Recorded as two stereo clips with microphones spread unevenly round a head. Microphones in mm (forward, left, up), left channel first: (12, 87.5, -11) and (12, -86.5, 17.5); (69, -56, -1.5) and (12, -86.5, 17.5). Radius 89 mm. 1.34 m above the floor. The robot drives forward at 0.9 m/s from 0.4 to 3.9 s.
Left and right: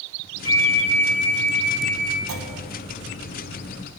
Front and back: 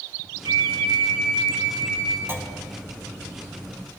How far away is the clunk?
About 1.5 m.